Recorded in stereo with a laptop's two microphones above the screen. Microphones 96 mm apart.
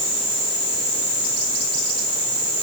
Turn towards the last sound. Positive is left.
No sound to turn to.